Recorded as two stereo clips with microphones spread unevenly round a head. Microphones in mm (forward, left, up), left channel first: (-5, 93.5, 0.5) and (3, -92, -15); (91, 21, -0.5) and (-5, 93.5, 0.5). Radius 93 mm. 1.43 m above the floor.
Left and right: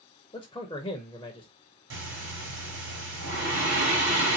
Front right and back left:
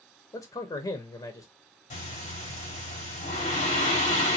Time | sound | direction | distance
0.3 | a man speaking | 20° left | 0.9 m
1.9 | breathing | 60° right | 3 m